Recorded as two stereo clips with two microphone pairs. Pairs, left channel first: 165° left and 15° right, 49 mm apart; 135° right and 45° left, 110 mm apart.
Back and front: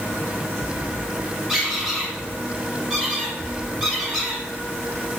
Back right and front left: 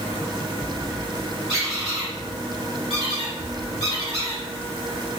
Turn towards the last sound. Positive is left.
turn(degrees=60)